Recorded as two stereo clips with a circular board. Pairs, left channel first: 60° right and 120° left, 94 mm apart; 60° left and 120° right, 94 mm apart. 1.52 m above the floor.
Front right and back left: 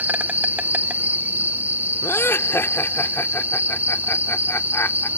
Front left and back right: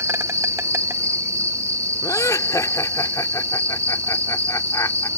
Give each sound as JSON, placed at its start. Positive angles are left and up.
{"t": 0.0, "sound": "an insect", "azimuth_deg": -170}
{"t": 2.0, "sound": "laughter", "azimuth_deg": 5}